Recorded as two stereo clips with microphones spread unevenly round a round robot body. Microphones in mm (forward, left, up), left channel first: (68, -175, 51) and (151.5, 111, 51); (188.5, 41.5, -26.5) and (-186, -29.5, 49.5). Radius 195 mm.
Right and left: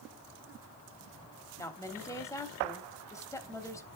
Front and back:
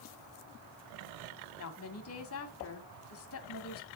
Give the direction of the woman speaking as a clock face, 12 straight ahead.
1 o'clock.